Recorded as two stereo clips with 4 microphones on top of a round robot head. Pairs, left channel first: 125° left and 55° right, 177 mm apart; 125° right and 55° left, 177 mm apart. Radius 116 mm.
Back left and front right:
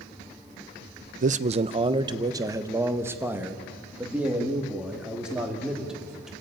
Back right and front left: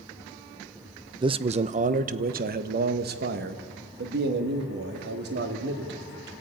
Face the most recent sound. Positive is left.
turn(degrees=30)